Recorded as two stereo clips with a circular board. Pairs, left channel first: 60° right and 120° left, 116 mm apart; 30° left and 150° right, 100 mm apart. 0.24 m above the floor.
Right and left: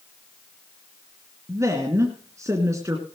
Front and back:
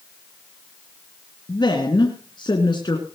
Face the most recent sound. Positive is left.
turn(degrees=60)